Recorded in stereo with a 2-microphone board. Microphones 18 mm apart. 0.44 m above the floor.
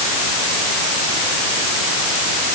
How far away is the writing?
No writing in this recording.